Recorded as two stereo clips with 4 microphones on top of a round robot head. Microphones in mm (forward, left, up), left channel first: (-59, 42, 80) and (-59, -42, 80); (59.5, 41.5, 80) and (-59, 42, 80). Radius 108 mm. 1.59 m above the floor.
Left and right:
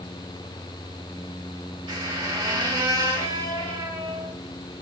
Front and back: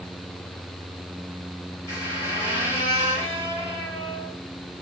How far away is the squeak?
About 2.5 m.